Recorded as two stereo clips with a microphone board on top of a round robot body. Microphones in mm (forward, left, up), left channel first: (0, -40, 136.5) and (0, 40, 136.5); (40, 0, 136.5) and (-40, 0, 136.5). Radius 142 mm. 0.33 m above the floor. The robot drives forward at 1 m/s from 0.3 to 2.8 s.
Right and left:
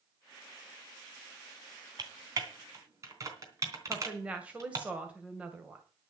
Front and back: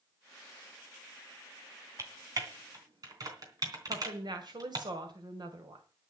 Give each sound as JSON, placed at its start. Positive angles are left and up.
{"t": 2.0, "sound": "typing on a keyboard", "azimuth_deg": 130, "distance_m": 3.0}
{"t": 3.9, "sound": "a woman speaking", "azimuth_deg": 165, "distance_m": 2.5}